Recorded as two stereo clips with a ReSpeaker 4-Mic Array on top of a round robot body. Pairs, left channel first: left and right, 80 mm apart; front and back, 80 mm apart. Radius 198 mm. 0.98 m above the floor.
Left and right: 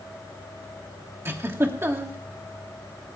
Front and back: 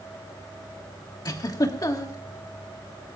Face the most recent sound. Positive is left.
turn(degrees=-35)